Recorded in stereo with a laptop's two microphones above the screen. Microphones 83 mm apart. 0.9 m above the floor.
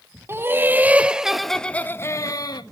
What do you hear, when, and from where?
0.3 s laughter: 30° right (ahead or behind), 1.6 m; by 2.6 s 55° left (ahead or behind), 1.0 m